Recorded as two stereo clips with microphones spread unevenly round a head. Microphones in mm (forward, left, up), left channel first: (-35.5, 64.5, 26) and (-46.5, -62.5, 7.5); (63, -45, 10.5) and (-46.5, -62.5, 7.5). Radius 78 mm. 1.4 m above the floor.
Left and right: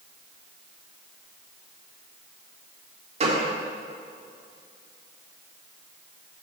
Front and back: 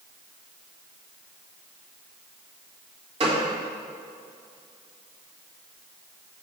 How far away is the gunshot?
About 1.9 m.